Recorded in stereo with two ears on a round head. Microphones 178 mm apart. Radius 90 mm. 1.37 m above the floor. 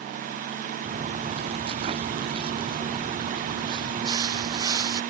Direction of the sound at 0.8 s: 35° right (ahead or behind).